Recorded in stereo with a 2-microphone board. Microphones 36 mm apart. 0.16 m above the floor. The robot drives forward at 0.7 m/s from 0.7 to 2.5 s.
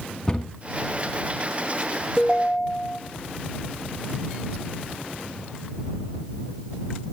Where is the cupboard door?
15° left (ahead or behind), 1.4 m.